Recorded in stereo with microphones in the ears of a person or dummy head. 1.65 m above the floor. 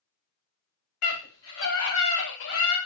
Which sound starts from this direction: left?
A scream, at 1.0 s.